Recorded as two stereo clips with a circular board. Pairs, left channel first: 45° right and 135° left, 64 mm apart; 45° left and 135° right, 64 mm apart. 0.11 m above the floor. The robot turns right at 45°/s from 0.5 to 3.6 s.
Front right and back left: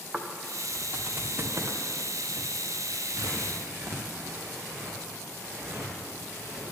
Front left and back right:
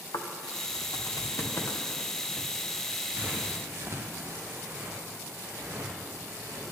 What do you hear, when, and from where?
0.1 s footsteps: 50° left, 1.2 m; by 6.6 s 175° left, 4.5 m